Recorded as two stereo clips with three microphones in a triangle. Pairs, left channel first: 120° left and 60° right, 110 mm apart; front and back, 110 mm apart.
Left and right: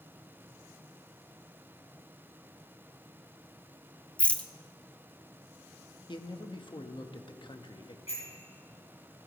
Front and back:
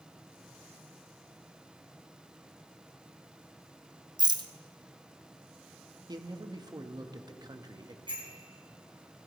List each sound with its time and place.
4.2 s a rattle: 165° right, 0.6 m
6.1 s a man speaking: 145° left, 0.9 m
8.1 s a bicycle bell: 140° left, 5.5 m